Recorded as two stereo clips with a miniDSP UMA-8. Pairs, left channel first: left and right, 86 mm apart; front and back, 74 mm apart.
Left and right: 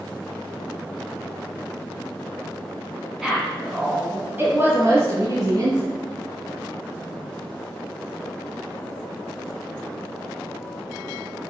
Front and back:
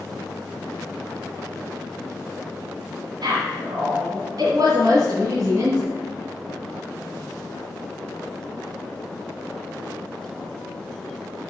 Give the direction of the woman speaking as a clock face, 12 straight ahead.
6 o'clock.